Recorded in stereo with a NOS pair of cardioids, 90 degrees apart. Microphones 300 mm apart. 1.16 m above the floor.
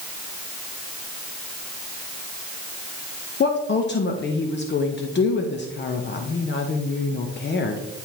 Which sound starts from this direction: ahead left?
A woman speaking, at 3.4 s.